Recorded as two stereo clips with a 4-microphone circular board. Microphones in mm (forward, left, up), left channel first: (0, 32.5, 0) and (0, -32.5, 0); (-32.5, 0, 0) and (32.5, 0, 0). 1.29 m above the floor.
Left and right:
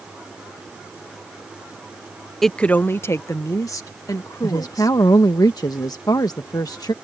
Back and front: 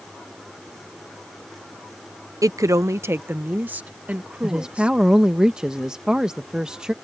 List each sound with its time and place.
2.4 s a woman speaking: 5° left; by 5.0 s 75° left
4.4 s a woman speaking: 80° left